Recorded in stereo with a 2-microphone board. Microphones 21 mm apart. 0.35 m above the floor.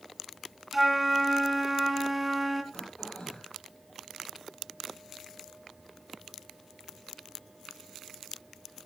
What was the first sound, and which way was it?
A flute, 10° right (ahead or behind).